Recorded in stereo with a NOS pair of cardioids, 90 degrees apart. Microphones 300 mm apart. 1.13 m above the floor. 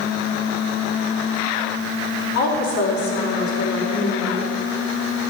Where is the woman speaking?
70° left, 4 m.